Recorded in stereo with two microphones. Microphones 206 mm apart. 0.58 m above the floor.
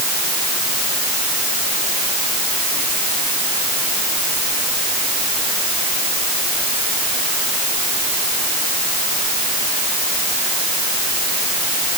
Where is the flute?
No flute in this recording.